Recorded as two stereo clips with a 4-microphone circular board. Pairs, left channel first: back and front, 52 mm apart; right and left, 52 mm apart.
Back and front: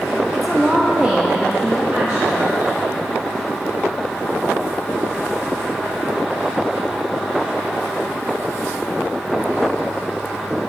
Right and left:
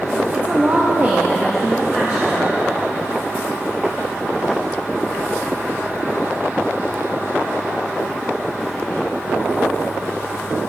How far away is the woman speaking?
About 0.5 m.